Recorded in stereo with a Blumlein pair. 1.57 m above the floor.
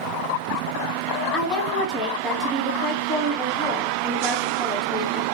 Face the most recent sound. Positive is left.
turn(degrees=5)